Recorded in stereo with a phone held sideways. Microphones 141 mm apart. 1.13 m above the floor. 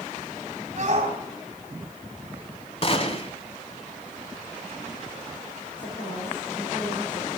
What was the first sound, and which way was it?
A shout, 50° right (ahead or behind).